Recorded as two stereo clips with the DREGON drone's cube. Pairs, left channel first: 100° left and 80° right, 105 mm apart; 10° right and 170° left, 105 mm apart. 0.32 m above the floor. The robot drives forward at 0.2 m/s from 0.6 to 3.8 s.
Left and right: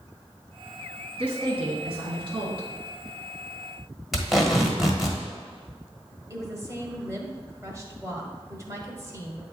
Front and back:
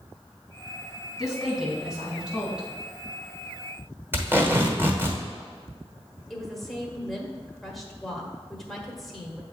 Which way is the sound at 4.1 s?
165° right.